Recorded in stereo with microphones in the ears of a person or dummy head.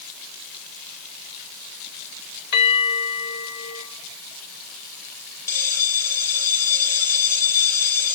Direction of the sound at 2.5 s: 60° left (ahead or behind).